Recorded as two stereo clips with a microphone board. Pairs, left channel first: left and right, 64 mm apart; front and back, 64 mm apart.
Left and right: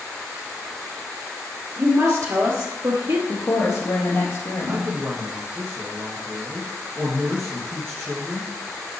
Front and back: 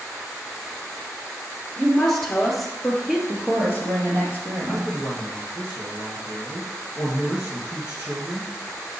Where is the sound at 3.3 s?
140° left, 4 m.